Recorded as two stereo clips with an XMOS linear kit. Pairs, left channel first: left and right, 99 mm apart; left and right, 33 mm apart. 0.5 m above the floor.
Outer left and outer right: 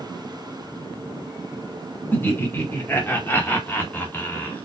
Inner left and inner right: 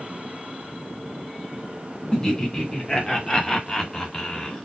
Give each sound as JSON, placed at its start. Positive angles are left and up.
{"t": 2.1, "sound": "laughter", "side_deg": 20, "distance_m": 1.6}